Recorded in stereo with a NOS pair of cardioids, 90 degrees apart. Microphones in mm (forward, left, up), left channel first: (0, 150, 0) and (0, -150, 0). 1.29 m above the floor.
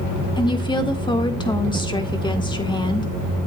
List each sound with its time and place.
0.4 s a woman speaking: 15° left, 1.8 m